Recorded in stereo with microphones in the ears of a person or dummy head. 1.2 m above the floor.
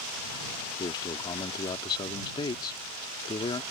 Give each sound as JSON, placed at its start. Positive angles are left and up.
{"t": 0.8, "sound": "a man speaking", "side_deg": 25}